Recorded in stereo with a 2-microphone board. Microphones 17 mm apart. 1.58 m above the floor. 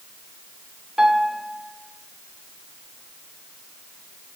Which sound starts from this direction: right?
A piano, at 1.0 s.